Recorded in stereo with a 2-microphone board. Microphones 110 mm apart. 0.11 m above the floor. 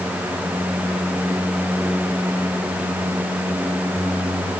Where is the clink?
No clink in this recording.